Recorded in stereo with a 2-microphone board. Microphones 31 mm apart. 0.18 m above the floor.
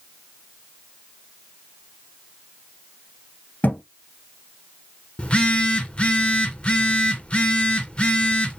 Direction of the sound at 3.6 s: 70° left (ahead or behind).